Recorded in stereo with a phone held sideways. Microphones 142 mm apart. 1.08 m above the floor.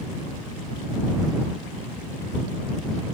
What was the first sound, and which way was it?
Only background noise.